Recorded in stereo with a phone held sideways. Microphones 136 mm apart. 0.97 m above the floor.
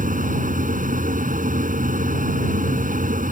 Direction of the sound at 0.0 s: 70° right (ahead or behind).